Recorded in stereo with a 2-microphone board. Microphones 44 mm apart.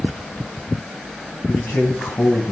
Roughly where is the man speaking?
Left.